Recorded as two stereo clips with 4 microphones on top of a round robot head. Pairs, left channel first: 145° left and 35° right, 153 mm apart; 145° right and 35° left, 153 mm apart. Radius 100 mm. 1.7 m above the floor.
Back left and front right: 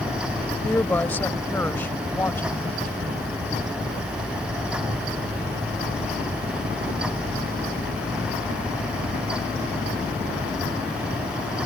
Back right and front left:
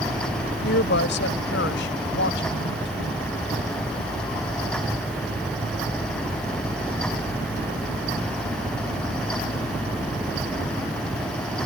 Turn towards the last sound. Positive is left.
turn(degrees=-140)